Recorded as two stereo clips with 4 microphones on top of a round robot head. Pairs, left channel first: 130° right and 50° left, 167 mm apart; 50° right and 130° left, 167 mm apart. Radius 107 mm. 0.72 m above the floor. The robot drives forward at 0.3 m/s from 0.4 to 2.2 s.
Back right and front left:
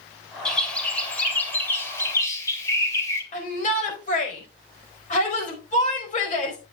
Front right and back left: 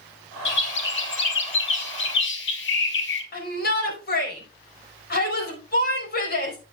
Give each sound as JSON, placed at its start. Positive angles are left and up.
{"t": 0.5, "sound": "a bird", "azimuth_deg": -45, "distance_m": 2.5}
{"t": 3.3, "sound": "a shout", "azimuth_deg": -85, "distance_m": 5.0}